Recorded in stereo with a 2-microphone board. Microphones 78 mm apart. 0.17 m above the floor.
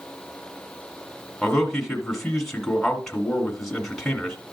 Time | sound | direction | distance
1.4 | a man speaking | centre (ahead or behind) | 1.7 m